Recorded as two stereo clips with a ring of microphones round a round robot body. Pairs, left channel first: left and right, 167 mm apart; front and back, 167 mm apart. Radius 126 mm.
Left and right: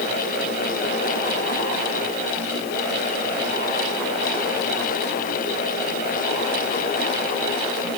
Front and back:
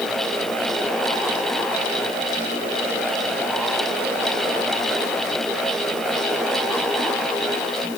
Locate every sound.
Only background noise.